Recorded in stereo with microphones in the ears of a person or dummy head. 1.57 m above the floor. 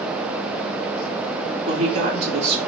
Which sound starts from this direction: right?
A woman speaking, at 1.7 s.